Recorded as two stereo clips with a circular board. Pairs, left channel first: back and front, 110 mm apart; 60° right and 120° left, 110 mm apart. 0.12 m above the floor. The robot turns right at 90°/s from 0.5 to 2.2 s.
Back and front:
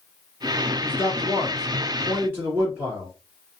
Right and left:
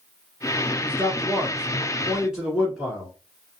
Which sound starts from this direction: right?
A man speaking, at 0.8 s.